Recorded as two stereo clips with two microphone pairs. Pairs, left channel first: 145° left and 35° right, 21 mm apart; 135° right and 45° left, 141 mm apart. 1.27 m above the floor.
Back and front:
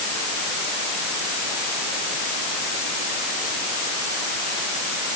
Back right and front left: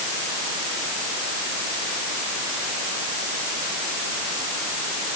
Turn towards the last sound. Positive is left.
No sound to turn to.